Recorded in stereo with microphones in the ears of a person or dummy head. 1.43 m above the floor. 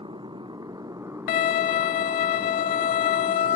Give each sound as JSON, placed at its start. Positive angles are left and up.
{"t": 0.0, "sound": "a motorcycle", "side_deg": -20}
{"t": 1.3, "sound": "a violin", "side_deg": 45}